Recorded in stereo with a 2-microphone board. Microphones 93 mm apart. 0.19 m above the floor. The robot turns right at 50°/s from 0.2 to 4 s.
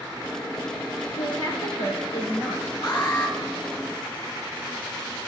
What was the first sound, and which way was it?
A woman speaking, 55° left.